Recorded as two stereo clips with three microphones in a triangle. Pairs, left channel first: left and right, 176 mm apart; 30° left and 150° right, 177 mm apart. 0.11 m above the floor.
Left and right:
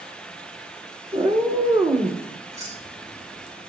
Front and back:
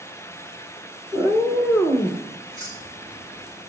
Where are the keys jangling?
160° right, 4.5 m.